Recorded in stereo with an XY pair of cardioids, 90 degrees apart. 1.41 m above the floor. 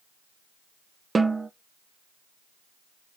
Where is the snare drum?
30° right, 1.0 m.